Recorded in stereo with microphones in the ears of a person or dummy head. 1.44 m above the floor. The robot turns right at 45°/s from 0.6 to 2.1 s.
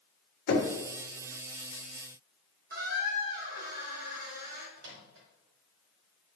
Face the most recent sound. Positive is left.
turn(degrees=-70)  # may be behind; listen again after turning